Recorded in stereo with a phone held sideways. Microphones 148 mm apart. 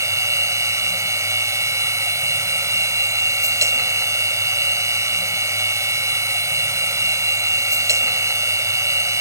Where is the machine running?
20° right (ahead or behind).